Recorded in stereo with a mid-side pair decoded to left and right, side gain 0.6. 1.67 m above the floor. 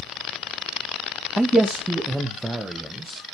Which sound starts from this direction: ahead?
A man speaking, at 1.4 s.